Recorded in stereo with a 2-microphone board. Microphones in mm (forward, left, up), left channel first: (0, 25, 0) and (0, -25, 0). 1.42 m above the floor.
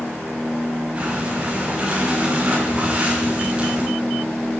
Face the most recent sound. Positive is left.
turn(degrees=-25)  # may be behind; listen again after turning